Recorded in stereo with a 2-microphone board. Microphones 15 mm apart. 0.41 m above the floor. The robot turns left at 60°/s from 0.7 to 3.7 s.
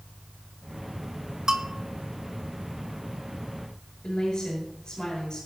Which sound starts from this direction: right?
A bell, at 1.5 s.